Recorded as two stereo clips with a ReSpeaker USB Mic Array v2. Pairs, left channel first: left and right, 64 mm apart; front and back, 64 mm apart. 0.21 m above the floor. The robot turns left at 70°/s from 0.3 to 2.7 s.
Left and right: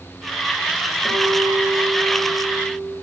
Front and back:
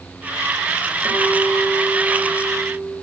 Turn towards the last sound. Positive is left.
turn(degrees=110)